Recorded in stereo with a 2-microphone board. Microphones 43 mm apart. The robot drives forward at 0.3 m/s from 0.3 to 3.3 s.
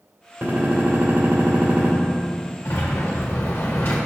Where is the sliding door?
70° left (ahead or behind), 1.3 m; by 4.0 s 65° left (ahead or behind), 1.3 m.